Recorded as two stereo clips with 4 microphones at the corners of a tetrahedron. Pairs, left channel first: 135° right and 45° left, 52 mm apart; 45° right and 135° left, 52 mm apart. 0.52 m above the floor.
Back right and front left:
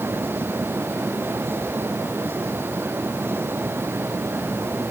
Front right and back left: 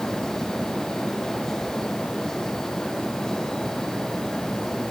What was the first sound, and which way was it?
Only background noise.